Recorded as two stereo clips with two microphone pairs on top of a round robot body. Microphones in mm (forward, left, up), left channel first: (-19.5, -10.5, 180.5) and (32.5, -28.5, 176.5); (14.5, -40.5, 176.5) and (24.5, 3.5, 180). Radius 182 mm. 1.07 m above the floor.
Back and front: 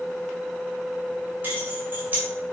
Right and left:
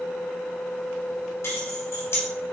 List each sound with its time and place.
1.4 s keys jangling: 80° right, 3.5 m